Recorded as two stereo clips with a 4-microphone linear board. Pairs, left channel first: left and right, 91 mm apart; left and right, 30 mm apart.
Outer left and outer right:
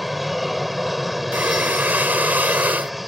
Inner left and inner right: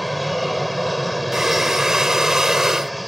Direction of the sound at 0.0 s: Centre (ahead or behind).